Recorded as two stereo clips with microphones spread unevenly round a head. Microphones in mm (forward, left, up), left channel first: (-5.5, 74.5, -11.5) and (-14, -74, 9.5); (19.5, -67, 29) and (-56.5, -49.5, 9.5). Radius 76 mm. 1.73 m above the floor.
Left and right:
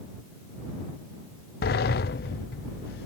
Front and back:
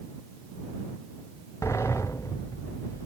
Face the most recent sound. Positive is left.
turn(degrees=55)